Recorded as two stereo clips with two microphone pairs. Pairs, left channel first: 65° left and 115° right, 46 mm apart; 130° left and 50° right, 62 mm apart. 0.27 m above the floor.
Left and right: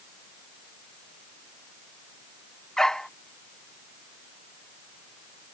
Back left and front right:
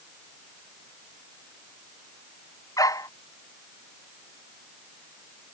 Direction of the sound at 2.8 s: 140° left.